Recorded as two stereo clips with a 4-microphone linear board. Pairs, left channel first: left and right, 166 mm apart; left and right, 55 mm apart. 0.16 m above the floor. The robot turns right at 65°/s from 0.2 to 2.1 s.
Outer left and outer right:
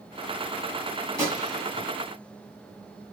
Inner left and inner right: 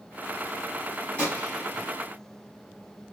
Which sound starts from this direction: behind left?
A gunshot, at 1.2 s.